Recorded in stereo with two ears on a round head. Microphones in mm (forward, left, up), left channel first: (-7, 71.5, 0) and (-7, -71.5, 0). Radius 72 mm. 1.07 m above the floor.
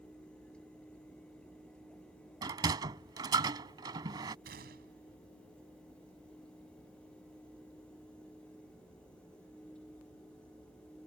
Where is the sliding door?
25° right (ahead or behind).